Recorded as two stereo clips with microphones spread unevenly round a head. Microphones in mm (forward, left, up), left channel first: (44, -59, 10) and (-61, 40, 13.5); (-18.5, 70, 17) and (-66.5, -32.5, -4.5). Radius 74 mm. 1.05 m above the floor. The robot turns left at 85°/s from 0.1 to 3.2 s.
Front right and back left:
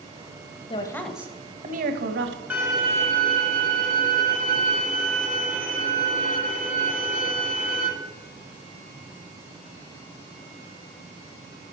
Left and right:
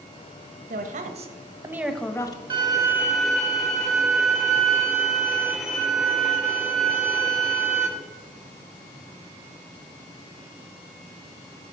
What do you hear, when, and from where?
0.7 s a woman speaking: 100° right, 0.8 m; by 2.4 s 115° left, 0.8 m
2.5 s a violin: 145° right, 1.4 m; by 7.9 s 155° left, 1.4 m